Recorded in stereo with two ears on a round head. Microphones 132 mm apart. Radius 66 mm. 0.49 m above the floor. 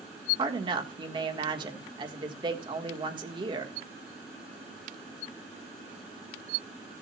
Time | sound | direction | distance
0.4 | a woman speaking | 30° right (ahead or behind) | 1.5 m